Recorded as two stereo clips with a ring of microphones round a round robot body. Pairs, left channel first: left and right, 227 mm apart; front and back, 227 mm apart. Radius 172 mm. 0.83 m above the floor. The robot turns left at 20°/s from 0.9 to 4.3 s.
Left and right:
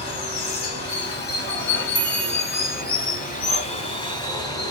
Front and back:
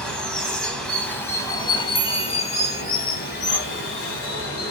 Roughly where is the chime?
Ahead left.